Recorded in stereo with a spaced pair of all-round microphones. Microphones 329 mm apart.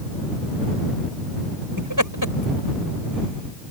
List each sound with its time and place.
1.8 s laughter: 70° right (ahead or behind); by 3.7 s 55° right (ahead or behind)